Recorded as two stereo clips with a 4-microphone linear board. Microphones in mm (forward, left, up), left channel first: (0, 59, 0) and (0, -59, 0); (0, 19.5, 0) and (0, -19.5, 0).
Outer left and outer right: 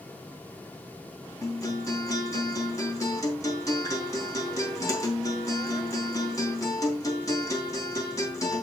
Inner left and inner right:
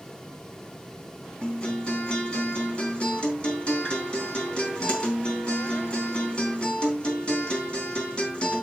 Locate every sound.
1.4 s a guitar: 25° left (ahead or behind), 4 m